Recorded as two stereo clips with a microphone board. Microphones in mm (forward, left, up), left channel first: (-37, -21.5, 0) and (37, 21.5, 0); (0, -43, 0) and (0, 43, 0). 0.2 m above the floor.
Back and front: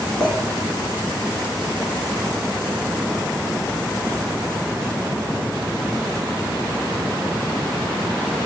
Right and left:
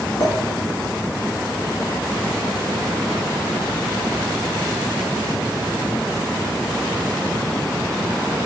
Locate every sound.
0.2 s a clink: 70° right, 1.1 m